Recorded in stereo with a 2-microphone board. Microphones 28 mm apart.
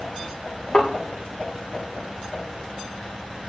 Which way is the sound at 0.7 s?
30° left (ahead or behind).